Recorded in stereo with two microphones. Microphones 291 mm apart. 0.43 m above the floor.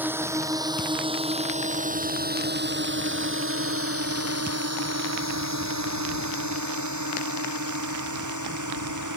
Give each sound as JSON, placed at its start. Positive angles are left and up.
{"t": 0.0, "sound": "a drone", "side_deg": -5}